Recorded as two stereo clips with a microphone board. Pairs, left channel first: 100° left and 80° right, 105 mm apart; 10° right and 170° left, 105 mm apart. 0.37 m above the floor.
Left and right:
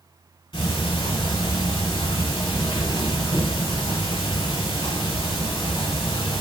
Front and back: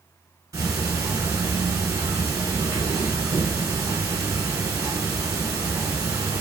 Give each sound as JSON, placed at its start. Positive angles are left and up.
{"t": 0.5, "sound": "ticking", "azimuth_deg": 120, "distance_m": 1.3}